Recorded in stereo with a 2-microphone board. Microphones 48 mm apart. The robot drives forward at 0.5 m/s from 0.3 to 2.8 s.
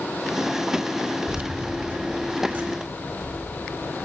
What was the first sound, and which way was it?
Keys jangling, 40° right (ahead or behind).